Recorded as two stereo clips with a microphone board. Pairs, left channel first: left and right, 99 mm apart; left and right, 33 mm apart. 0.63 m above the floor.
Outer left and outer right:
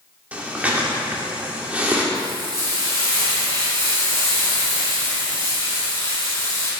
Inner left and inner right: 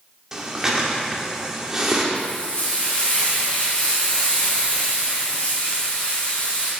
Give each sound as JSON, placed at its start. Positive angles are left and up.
{"t": 0.3, "sound": "breathing", "side_deg": -15, "distance_m": 1.7}
{"t": 2.1, "sound": "frying", "side_deg": 30, "distance_m": 4.5}